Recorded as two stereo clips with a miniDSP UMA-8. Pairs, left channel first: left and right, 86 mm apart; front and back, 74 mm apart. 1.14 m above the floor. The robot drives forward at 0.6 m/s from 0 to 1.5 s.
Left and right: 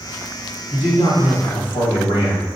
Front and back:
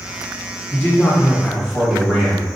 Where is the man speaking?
85° left, 1.5 m; by 2.5 s 105° left, 1.6 m.